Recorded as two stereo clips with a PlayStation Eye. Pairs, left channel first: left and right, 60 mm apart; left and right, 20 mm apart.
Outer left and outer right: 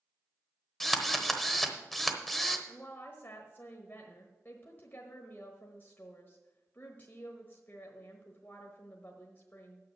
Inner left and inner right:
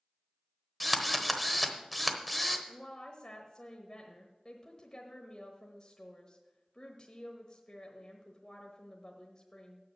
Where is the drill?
5° left (ahead or behind), 1.0 m.